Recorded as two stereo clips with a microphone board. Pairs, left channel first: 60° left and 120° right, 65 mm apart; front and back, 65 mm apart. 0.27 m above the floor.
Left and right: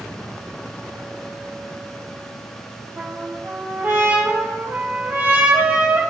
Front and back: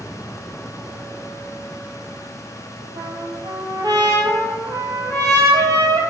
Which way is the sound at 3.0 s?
Straight behind.